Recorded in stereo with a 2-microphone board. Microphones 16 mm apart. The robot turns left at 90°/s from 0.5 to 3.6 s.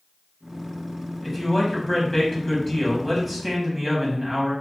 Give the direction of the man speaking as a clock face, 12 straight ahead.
7 o'clock.